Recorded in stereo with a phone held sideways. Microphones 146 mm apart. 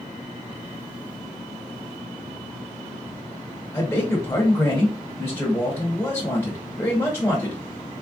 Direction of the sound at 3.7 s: 15° left (ahead or behind).